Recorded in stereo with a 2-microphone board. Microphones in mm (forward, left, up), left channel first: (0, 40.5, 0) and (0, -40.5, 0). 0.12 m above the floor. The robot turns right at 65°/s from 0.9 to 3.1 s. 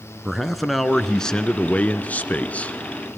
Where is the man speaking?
Centre (ahead or behind), 1.1 m; by 3.2 s 10° left (ahead or behind), 1.1 m.